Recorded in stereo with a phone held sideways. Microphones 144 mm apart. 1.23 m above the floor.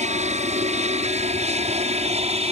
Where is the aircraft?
55° right (ahead or behind); by 2.5 s 45° right (ahead or behind).